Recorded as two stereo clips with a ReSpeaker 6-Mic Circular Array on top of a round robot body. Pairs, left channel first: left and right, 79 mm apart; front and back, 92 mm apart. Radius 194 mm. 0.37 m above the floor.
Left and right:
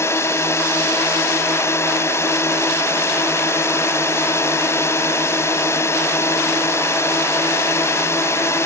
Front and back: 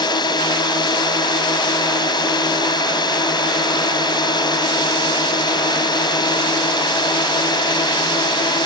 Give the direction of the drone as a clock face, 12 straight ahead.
11 o'clock.